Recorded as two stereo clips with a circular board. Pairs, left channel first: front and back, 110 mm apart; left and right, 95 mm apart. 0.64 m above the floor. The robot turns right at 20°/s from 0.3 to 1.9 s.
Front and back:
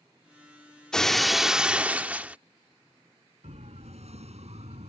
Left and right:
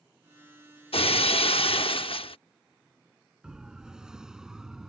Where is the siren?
170° right; by 4.9 s 175° right.